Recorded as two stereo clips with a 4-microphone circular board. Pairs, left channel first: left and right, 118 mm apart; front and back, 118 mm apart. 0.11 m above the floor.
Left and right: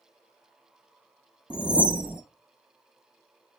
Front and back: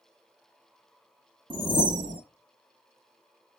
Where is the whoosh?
165° right, 0.5 m.